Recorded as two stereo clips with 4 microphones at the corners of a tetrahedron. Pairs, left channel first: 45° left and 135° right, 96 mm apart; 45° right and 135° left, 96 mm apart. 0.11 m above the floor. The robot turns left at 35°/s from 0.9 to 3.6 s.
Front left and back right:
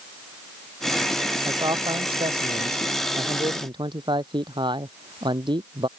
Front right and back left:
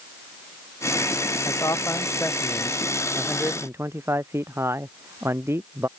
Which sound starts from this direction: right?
A man speaking, at 1.4 s.